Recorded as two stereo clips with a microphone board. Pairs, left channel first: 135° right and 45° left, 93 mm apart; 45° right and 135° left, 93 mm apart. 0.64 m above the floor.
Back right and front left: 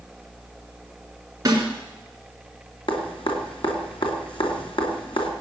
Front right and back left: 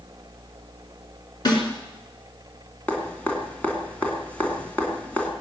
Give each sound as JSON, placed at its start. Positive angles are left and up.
{"t": 1.4, "sound": "a snare drum", "azimuth_deg": -10, "distance_m": 3.5}
{"t": 2.9, "sound": "dripping", "azimuth_deg": -120, "distance_m": 2.5}